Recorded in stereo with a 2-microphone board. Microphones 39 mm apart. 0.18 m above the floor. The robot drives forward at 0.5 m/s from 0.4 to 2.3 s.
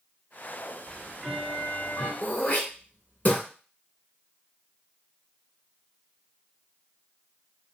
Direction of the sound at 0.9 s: 25° left (ahead or behind).